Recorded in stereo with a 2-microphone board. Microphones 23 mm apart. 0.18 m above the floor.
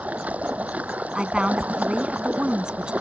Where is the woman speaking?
40° right (ahead or behind).